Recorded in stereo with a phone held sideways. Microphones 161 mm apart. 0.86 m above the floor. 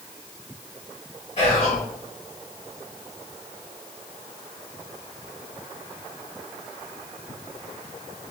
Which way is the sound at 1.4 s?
45° left (ahead or behind).